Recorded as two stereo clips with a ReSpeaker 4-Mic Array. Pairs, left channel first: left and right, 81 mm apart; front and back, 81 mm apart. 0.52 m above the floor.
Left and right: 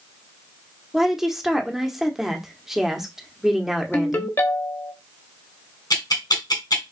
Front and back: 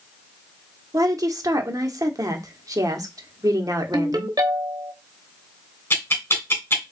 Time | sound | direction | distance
0.9 | a woman speaking | 175° right | 0.9 m
3.9 | a ringtone | 145° left | 0.9 m
5.9 | ticking | 60° left | 1.7 m